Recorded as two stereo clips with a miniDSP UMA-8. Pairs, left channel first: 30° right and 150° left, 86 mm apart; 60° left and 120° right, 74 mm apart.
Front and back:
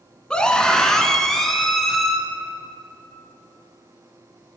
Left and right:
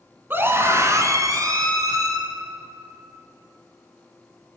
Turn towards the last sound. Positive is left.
turn(degrees=-115)